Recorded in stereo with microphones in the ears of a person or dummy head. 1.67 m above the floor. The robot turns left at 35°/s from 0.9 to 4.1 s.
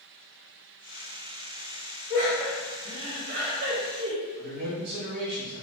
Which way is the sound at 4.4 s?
60° right (ahead or behind).